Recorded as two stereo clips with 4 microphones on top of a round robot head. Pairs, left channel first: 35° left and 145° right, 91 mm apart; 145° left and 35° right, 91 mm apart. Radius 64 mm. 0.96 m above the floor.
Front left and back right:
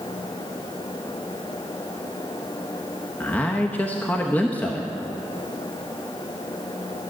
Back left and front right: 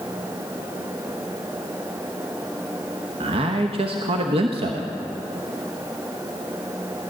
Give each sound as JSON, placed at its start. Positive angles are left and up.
{"t": 3.2, "sound": "a man speaking", "azimuth_deg": -40, "distance_m": 1.0}